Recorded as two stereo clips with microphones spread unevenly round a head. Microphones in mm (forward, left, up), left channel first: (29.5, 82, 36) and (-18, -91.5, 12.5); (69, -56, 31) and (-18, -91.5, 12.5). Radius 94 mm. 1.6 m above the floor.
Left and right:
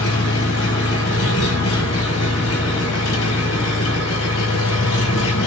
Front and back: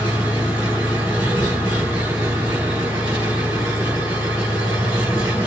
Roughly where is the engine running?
Left.